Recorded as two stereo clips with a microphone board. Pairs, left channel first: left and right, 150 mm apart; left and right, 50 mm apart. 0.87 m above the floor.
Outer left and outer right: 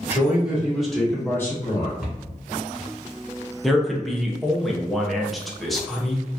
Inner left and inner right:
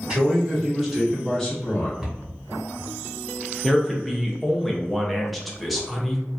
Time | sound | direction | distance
0.1 | a man speaking | 15° right (ahead or behind) | 1.5 m
2.0 | a cupboard door | 10° right (ahead or behind) | 1.3 m
3.6 | a man speaking | centre (ahead or behind) | 0.6 m